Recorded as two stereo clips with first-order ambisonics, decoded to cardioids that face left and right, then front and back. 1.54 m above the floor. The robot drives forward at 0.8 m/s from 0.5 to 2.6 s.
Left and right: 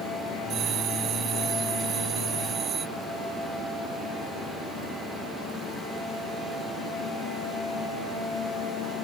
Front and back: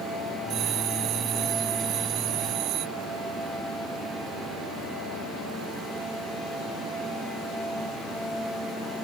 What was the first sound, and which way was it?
A bell, 135° right.